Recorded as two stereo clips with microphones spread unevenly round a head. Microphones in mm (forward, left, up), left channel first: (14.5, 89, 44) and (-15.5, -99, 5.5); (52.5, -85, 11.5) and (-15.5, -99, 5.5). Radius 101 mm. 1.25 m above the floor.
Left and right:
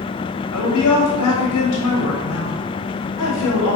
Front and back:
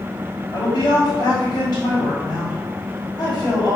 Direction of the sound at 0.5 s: 80° left.